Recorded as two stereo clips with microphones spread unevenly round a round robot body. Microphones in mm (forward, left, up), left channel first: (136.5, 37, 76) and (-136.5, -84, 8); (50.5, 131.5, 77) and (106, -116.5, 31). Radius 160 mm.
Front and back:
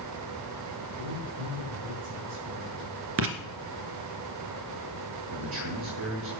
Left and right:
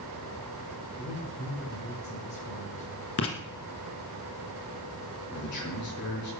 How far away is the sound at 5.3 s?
About 5 m.